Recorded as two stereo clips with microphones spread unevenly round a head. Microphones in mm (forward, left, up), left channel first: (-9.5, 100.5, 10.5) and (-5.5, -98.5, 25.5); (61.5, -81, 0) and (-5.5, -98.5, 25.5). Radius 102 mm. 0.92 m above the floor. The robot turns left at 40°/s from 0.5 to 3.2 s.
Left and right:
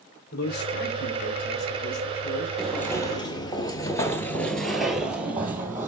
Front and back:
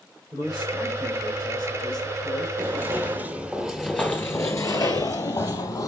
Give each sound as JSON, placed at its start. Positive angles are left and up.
{"t": 0.3, "sound": "a man speaking", "azimuth_deg": 130, "distance_m": 3.0}
{"t": 2.6, "sound": "footsteps", "azimuth_deg": -175, "distance_m": 1.6}